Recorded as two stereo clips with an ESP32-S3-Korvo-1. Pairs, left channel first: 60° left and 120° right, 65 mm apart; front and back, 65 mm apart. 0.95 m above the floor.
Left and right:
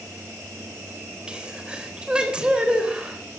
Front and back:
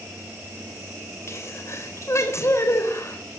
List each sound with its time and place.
1.3 s a sneeze: 45° right, 3.5 m